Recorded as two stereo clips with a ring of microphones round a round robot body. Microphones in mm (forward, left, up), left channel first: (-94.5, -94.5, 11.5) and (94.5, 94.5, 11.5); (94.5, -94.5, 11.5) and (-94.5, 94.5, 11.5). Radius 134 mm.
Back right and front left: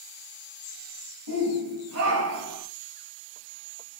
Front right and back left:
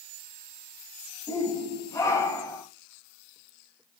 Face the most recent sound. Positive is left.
turn(degrees=35)